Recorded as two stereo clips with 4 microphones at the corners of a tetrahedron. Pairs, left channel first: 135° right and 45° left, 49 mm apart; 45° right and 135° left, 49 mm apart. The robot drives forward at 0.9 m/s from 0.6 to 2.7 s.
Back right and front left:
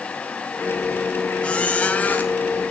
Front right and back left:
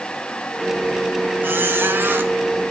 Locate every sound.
1.4 s a squeak: 165° left, 1.4 m; by 2.3 s 170° left, 2 m